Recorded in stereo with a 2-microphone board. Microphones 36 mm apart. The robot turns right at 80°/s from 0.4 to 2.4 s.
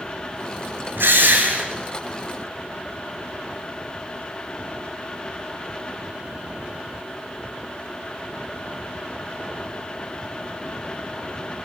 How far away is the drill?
About 2 m.